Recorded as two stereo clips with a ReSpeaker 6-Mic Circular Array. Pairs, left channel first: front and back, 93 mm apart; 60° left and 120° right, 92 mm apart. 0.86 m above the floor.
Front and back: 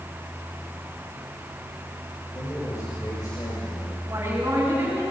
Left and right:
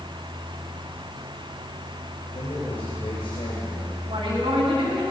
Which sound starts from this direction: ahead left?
A man speaking, at 2.3 s.